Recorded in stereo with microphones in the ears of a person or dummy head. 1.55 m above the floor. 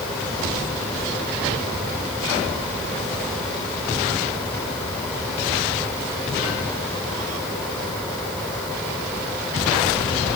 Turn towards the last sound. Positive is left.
No sound to turn to.